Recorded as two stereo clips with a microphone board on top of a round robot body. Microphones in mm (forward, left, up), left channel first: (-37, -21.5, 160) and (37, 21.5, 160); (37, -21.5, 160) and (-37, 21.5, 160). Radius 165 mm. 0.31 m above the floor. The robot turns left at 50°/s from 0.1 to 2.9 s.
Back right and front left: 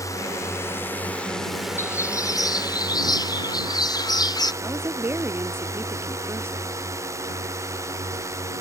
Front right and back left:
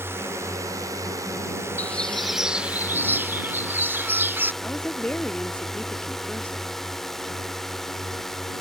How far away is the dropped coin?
No dropped coin in this recording.